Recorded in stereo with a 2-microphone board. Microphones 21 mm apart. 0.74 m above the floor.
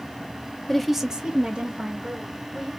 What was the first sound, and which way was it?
A woman speaking, 15° left (ahead or behind).